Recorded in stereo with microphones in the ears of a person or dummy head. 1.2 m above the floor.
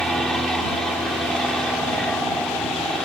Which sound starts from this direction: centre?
An aircraft, at 0.0 s.